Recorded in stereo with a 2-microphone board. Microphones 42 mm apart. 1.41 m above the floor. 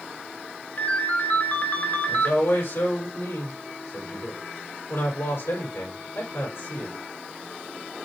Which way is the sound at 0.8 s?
40° left (ahead or behind).